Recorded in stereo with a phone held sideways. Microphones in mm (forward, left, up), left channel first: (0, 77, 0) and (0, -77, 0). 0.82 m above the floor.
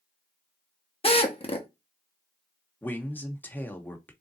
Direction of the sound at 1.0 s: 40° left (ahead or behind).